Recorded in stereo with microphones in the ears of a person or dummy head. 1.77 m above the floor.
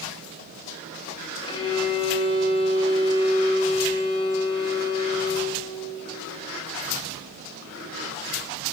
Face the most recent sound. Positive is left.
turn(degrees=30)  # may be behind; listen again after turning